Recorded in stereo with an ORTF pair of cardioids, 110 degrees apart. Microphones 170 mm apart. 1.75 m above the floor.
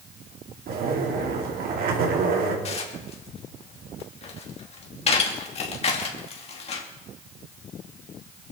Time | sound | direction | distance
0.7 | a zipper | 60° right | 3.5 m
2.6 | dishes clattering | 40° left | 2.5 m